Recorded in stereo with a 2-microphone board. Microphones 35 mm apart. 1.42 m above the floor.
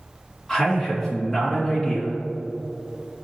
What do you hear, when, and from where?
0.5 s a man speaking: centre (ahead or behind), 1.9 m